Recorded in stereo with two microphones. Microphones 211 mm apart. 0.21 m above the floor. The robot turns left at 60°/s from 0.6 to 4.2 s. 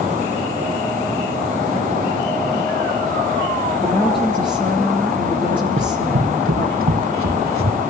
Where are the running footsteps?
70° right (ahead or behind), 1.5 m; by 7.8 s 85° right, 2.5 m.